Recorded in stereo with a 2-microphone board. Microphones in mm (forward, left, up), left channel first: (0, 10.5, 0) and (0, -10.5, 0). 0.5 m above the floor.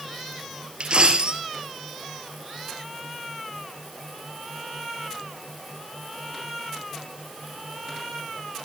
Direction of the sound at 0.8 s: 55° right (ahead or behind).